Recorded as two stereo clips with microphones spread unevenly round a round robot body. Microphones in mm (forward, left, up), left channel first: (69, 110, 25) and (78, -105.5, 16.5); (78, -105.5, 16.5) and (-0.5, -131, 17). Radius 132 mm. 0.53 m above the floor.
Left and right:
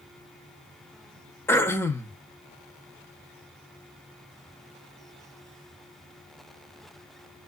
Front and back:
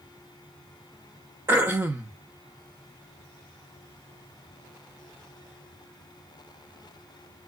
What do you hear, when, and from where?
1.5 s throat clearing: 170° left, 0.5 m